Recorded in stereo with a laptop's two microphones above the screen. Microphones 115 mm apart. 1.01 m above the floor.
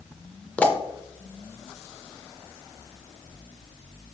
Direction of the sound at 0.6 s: 10° left (ahead or behind).